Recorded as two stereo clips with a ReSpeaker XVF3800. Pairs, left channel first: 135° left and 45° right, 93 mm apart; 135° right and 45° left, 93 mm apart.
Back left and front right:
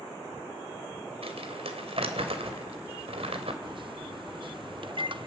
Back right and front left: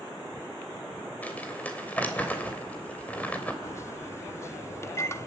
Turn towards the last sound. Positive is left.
turn(degrees=-75)